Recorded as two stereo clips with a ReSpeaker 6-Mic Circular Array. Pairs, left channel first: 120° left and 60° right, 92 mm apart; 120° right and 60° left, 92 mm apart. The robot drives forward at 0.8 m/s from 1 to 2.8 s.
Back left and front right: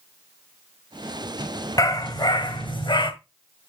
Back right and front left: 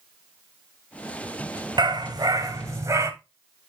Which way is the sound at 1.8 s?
80° left.